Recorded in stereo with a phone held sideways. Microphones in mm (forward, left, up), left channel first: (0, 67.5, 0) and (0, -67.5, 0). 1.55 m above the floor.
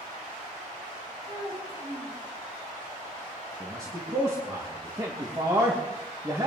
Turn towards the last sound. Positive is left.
turn(degrees=-25)  # may be behind; listen again after turning